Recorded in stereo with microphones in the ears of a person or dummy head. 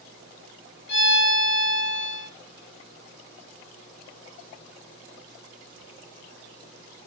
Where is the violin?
65° left (ahead or behind), 1.5 m.